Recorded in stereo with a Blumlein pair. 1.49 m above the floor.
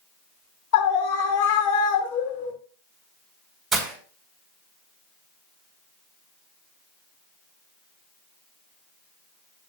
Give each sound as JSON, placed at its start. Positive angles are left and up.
{"t": 0.7, "sound": "a scream", "azimuth_deg": 45, "distance_m": 2.5}
{"t": 3.7, "sound": "breaking glass", "azimuth_deg": -15, "distance_m": 4.5}